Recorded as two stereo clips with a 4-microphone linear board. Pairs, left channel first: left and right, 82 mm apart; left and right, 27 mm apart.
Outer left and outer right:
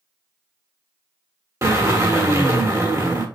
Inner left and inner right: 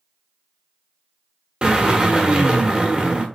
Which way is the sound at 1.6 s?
40° right (ahead or behind).